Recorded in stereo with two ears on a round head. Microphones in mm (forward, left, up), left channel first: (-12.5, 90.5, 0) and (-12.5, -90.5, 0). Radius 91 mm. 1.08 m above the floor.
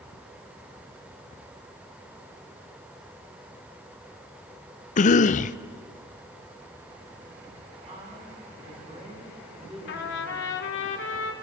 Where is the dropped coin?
No dropped coin in this recording.